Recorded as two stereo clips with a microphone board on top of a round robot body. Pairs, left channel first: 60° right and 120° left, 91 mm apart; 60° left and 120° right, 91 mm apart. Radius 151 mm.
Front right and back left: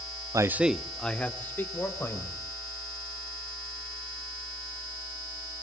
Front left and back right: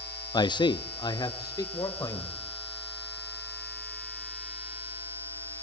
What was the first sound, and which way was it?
A man speaking, 80° left.